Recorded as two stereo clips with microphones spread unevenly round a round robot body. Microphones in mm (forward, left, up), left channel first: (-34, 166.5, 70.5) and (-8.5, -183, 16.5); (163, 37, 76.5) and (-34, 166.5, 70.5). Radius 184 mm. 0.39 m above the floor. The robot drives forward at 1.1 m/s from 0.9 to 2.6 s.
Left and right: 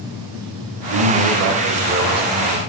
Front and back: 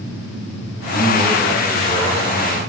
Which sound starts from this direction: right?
A man speaking, at 0.9 s.